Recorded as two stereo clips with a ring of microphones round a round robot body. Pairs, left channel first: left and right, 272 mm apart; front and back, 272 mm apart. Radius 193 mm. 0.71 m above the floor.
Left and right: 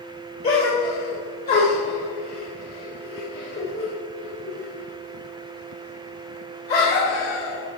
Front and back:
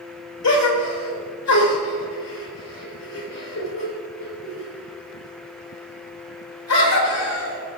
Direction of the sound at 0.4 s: 25° left.